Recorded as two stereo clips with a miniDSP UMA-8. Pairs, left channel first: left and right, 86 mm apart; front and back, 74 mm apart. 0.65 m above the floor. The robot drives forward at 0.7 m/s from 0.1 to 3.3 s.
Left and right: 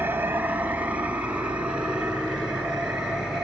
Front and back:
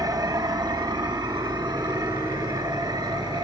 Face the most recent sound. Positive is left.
turn(degrees=-170)